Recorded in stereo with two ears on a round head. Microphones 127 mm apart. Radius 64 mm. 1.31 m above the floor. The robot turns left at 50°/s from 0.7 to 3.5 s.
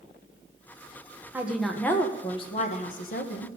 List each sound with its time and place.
1.3 s a woman speaking: 165° right, 1.3 m; by 3.5 s 85° left, 1.3 m